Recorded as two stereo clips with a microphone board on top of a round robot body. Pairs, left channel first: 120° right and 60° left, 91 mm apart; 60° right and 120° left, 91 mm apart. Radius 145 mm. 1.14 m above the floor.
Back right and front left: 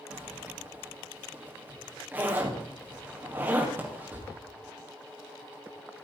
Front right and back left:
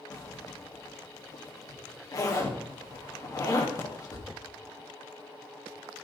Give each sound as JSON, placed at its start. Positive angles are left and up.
{"t": 0.1, "sound": "a zipper", "azimuth_deg": -10, "distance_m": 3.0}